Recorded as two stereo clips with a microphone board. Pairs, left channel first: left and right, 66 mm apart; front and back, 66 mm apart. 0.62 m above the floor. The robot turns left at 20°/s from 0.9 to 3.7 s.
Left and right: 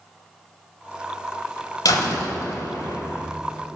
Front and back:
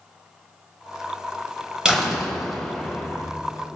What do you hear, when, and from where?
1.9 s a door slam: 105° left, 2.5 m; by 3.3 s 75° left, 2.5 m